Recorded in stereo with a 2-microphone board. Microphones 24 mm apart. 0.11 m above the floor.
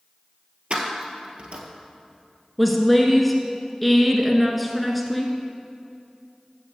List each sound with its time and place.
0.7 s keys jangling: 55° right (ahead or behind), 1.4 m
2.6 s a woman speaking: centre (ahead or behind), 1.1 m